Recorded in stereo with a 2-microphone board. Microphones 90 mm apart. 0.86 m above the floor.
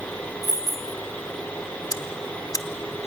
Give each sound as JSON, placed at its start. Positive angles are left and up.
{"t": 0.4, "sound": "keys jangling", "side_deg": 40, "distance_m": 1.7}
{"t": 1.9, "sound": "ticking", "side_deg": 40, "distance_m": 1.0}